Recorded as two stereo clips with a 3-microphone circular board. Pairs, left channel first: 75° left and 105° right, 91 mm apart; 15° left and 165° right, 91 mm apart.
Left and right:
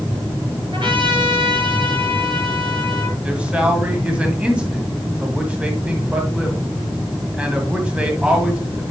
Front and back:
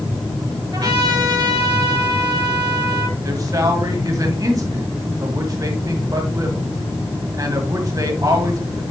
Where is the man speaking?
175° right, 1.7 m.